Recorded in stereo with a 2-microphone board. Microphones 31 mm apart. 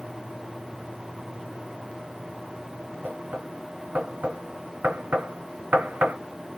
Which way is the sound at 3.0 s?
75° right (ahead or behind).